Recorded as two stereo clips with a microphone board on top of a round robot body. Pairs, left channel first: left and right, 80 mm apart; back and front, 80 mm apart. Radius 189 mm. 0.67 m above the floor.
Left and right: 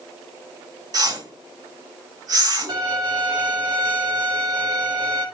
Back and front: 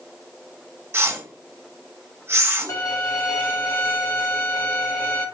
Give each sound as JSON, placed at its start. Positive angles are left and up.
{"t": 0.9, "sound": "a whoosh", "azimuth_deg": -60, "distance_m": 2.0}
{"t": 2.7, "sound": "a violin", "azimuth_deg": -125, "distance_m": 1.0}